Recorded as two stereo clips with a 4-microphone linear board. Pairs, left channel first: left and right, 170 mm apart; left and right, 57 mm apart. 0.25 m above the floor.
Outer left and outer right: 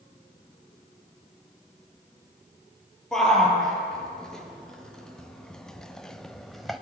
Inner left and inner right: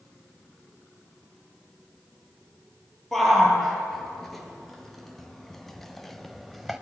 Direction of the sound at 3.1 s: 5° left (ahead or behind).